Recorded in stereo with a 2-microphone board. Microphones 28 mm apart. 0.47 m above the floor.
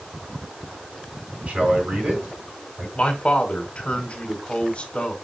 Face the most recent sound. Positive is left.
turn(degrees=45)  # may be behind; listen again after turning